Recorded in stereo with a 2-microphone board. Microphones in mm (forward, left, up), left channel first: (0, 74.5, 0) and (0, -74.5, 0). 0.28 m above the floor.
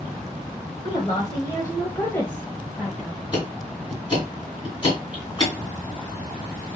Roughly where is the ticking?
Left.